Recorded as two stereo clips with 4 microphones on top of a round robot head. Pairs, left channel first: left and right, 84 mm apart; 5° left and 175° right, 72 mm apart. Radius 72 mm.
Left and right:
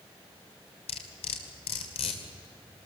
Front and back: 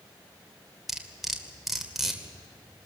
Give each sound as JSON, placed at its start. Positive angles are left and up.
{"t": 0.9, "sound": "cutlery clinking", "azimuth_deg": 95, "distance_m": 2.0}